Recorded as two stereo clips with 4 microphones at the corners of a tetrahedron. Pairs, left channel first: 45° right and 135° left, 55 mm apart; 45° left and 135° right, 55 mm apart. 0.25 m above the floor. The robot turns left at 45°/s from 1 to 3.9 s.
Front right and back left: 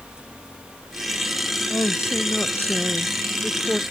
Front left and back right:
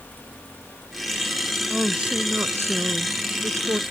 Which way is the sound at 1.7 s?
55° right.